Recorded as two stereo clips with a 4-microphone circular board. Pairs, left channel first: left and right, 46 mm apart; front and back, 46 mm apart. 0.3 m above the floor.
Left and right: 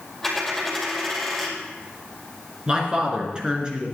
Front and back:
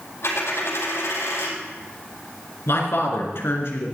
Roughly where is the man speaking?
Ahead.